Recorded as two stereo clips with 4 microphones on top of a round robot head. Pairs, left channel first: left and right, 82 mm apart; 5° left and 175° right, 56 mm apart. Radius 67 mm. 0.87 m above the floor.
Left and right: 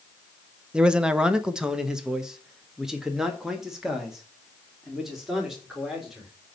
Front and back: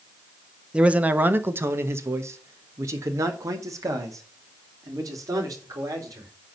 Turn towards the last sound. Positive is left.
turn(degrees=-175)